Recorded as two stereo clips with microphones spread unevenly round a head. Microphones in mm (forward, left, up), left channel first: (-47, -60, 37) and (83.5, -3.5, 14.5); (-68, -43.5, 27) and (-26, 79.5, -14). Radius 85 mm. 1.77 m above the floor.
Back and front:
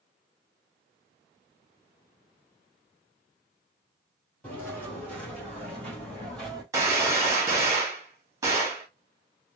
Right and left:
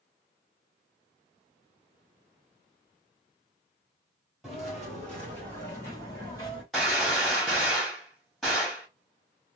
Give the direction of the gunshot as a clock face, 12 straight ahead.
2 o'clock.